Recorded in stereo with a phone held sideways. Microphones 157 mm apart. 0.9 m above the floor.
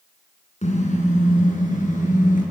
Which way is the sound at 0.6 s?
45° left (ahead or behind).